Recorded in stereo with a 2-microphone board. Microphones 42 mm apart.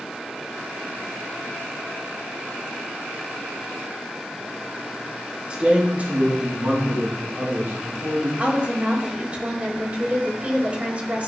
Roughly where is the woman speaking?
Right.